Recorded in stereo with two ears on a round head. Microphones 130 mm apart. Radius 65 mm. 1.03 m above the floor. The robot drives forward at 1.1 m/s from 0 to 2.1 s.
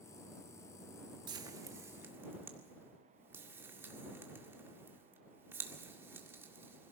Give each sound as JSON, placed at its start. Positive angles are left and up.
{"t": 1.3, "sound": "frying", "side_deg": -30, "distance_m": 1.1}